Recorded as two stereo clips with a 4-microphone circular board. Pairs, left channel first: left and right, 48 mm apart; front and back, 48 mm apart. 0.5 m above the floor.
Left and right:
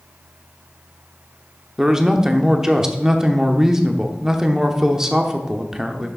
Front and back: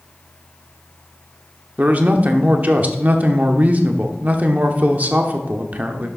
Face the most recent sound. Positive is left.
turn(degrees=-160)